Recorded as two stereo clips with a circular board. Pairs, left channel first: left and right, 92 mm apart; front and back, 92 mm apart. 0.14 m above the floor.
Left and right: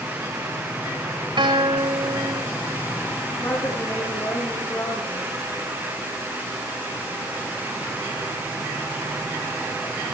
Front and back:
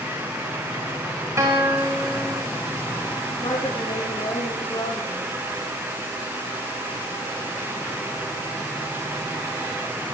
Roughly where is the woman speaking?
Ahead left.